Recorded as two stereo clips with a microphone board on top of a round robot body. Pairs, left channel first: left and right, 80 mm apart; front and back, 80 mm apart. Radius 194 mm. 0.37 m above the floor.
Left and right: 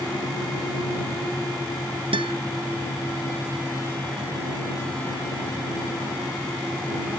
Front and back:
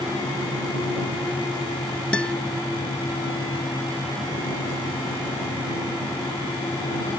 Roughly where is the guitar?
Right.